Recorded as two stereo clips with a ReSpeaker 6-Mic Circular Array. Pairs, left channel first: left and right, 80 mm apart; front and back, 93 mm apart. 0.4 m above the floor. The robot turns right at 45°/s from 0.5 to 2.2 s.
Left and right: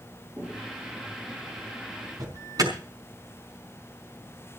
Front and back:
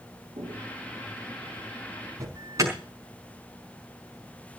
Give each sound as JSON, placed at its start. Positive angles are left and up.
{"t": 0.4, "sound": "footsteps", "azimuth_deg": -160, "distance_m": 6.5}
{"t": 2.2, "sound": "an alarm", "azimuth_deg": -125, "distance_m": 5.0}